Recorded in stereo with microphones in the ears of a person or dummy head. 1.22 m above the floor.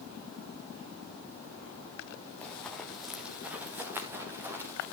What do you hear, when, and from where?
2.4 s running footsteps: 5° left (ahead or behind), 2.5 m; by 4.8 s 10° right (ahead or behind), 4.5 m